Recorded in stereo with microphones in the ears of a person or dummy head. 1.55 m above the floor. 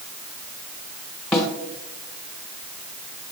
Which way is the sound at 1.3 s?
5° left (ahead or behind).